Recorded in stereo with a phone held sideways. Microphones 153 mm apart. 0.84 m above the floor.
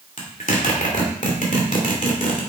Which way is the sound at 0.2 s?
55° left (ahead or behind).